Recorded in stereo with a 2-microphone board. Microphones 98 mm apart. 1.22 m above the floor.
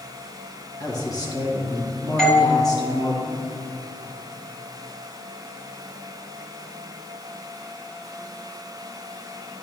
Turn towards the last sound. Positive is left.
turn(degrees=5)  # may be behind; listen again after turning